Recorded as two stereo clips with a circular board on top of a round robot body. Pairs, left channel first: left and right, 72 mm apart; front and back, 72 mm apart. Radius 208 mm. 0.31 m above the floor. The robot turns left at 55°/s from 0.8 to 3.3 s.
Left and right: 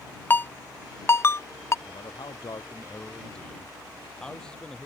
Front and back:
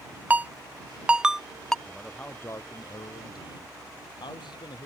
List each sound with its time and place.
0.3 s a ringtone: 130° left; by 1.8 s 75° left
1.9 s a man speaking: 90° left; by 4.9 s 10° left